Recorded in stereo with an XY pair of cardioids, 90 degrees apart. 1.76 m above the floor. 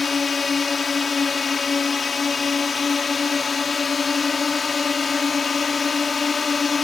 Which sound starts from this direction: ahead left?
A drone, at 0.0 s.